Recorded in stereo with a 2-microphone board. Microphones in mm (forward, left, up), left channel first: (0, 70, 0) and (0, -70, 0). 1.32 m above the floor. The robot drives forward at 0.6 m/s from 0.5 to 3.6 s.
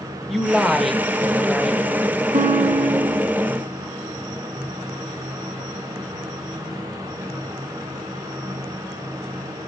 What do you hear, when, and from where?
0.3 s a woman speaking: centre (ahead or behind), 1.6 m
2.3 s a guitar: 60° right (ahead or behind), 1.9 m; by 3.3 s 80° right, 1.7 m